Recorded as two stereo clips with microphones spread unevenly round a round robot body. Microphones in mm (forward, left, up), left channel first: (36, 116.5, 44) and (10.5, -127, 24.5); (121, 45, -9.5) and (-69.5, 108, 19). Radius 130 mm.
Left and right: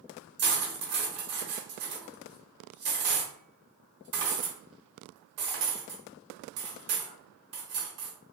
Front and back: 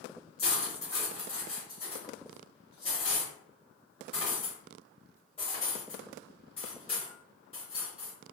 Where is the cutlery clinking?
85° right, 0.8 m.